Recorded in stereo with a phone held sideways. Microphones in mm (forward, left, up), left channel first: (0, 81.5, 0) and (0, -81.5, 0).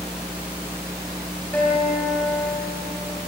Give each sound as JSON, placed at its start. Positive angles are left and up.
{"t": 1.5, "sound": "a guitar", "side_deg": 10, "distance_m": 4.0}